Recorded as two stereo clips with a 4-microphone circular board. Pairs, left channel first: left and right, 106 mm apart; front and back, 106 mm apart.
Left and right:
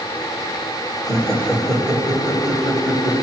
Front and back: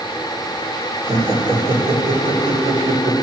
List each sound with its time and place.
1.1 s laughter: 175° left, 4 m